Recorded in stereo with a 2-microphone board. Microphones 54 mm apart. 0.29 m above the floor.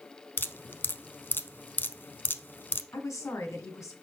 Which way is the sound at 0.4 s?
40° left (ahead or behind).